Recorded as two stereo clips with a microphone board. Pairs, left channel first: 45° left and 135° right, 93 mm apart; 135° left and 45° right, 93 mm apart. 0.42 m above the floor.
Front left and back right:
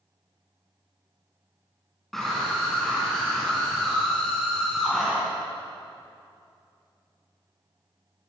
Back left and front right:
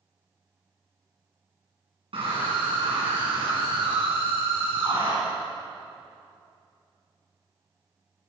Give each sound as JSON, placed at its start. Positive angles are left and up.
{"t": 2.1, "sound": "a scream", "azimuth_deg": -40, "distance_m": 5.0}